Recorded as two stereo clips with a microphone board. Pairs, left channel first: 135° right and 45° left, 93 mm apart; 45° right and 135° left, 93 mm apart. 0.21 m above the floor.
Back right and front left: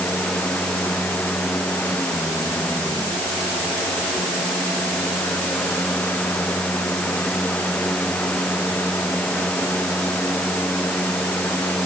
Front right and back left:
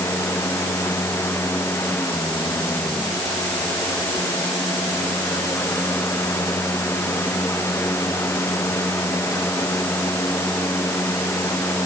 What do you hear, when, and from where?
Only background noise.